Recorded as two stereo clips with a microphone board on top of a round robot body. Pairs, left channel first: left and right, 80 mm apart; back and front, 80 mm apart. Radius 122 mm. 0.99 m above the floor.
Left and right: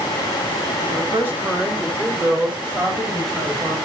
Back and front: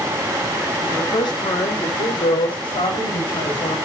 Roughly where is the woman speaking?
Behind right.